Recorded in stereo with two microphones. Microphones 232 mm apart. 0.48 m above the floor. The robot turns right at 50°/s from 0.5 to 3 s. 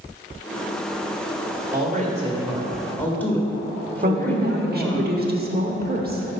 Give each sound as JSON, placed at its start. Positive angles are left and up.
{"t": 1.7, "sound": "a woman speaking", "azimuth_deg": -55, "distance_m": 1.6}
{"t": 4.0, "sound": "a woman speaking", "side_deg": -40, "distance_m": 1.0}